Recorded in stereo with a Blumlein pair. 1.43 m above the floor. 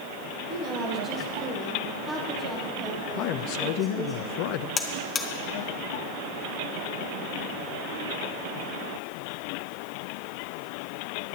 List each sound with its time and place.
0.5 s a woman speaking: 40° right, 1.9 m; by 4.2 s straight ahead, 5.5 m
3.2 s a man speaking: 40° left, 0.6 m
4.8 s a buzzer: 20° left, 1.1 m